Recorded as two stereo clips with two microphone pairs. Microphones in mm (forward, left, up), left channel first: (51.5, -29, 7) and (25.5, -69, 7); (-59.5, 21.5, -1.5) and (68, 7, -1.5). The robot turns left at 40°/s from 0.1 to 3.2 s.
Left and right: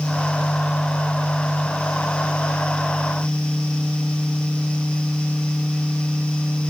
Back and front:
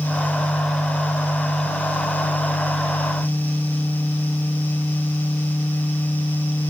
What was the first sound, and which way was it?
Only background noise.